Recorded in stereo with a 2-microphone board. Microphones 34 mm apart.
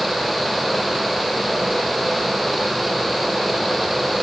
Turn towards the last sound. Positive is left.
No sound to turn to.